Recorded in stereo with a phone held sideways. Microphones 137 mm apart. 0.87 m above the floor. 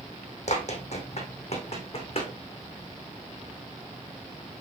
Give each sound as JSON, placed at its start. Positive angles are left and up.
{"t": 0.5, "sound": "running footsteps", "side_deg": 55, "distance_m": 2.5}